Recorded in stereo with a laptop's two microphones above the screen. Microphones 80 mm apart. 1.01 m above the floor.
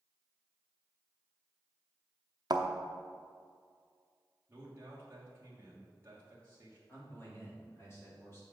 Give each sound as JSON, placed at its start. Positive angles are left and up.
{"t": 2.5, "sound": "a thud", "side_deg": -55, "distance_m": 0.7}
{"t": 4.5, "sound": "a man speaking", "side_deg": -30, "distance_m": 1.2}
{"t": 6.9, "sound": "a man speaking", "side_deg": 30, "distance_m": 2.5}